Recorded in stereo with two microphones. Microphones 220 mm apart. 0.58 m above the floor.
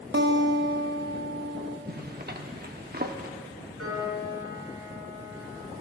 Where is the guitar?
50° right (ahead or behind), 0.8 m.